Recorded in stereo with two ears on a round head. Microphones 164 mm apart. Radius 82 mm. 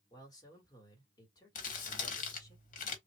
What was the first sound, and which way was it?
A man speaking, 20° left (ahead or behind).